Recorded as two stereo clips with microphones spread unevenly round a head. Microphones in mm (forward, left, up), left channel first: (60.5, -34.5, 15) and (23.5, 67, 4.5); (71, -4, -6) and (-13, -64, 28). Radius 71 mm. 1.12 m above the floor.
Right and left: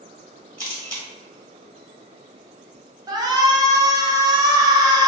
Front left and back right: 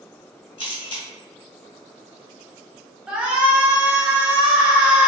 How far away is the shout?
About 0.6 m.